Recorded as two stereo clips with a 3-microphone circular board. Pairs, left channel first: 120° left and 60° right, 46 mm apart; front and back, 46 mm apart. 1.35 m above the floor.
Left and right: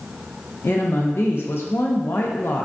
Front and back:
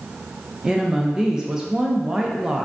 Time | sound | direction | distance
0.6 | a woman speaking | 105° left | 0.7 m